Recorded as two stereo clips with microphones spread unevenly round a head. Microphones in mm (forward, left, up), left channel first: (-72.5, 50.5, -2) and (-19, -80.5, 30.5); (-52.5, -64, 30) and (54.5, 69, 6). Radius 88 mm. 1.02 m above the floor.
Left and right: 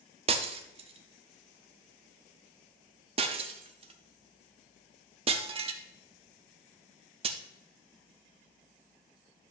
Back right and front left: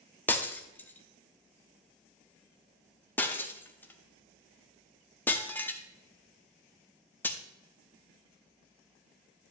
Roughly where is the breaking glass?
Ahead right.